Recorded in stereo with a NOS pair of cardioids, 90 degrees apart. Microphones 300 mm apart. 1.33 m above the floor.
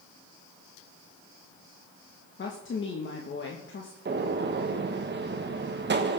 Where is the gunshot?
35° right, 1.6 m.